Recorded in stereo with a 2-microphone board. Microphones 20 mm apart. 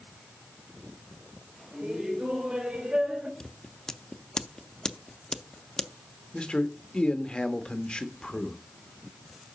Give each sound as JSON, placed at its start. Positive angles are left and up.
{"t": 1.7, "sound": "laughter", "side_deg": -70, "distance_m": 4.0}
{"t": 3.4, "sound": "scissors", "side_deg": 40, "distance_m": 0.6}
{"t": 6.3, "sound": "a man speaking", "side_deg": 55, "distance_m": 1.1}